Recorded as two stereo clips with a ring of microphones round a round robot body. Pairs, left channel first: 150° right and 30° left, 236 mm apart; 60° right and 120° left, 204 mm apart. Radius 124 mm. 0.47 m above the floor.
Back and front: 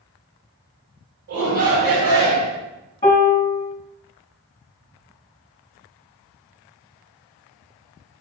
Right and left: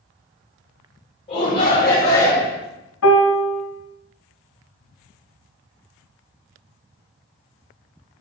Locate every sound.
1.3 s a shout: 5° left, 2.5 m; by 2.6 s 20° left, 1.7 m
3.0 s a piano: 80° right, 1.3 m